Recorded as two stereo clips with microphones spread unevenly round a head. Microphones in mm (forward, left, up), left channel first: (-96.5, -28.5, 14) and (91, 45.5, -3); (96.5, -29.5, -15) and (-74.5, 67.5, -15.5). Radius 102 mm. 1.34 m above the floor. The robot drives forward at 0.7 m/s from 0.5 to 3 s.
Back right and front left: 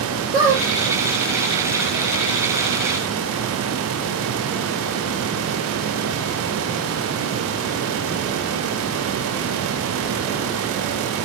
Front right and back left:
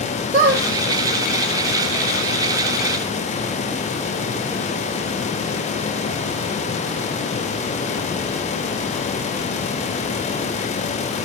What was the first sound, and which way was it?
A squeak, 95° left.